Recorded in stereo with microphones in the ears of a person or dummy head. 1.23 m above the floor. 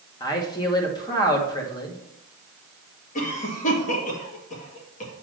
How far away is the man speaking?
About 2 m.